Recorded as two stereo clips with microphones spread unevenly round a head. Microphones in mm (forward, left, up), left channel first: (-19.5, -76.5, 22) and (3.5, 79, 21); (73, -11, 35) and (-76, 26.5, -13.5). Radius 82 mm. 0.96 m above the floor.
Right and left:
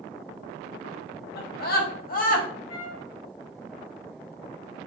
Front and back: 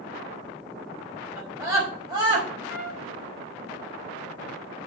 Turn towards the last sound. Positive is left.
turn(degrees=-95)